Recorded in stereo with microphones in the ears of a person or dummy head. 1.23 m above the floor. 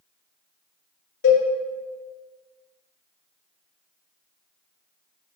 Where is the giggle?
No giggle in this recording.